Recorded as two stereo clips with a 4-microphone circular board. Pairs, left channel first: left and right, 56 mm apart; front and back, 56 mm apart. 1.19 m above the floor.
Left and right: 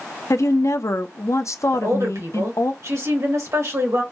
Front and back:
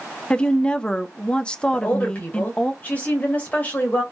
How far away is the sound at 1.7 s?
About 2.5 m.